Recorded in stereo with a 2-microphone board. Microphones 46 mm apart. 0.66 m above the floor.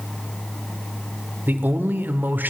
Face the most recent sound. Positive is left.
turn(degrees=-45)  # may be behind; listen again after turning